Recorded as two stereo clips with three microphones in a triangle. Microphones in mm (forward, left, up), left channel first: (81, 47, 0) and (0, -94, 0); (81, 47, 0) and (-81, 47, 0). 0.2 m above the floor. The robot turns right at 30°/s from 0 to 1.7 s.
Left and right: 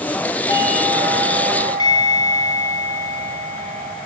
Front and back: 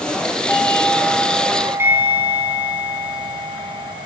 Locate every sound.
0.5 s a doorbell: 75° left, 3 m; by 3.9 s 110° left, 3 m